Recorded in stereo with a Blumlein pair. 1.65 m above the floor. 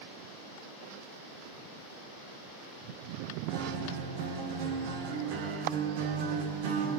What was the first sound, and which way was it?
A guitar, 50° right.